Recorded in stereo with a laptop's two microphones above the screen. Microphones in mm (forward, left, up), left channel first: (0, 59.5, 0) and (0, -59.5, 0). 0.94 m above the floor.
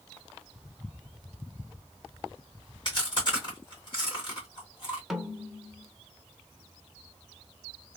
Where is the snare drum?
Centre (ahead or behind), 0.6 m.